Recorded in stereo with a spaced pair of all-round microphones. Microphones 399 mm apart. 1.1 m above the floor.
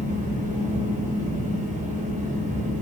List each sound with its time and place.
0.0 s a fan: 20° right (ahead or behind), 0.7 m